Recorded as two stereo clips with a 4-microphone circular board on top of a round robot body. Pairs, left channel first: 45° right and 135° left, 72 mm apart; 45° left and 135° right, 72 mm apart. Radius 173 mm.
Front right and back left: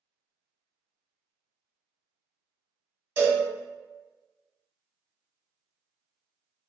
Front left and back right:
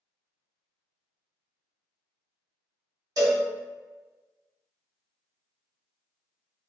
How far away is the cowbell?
About 1.6 m.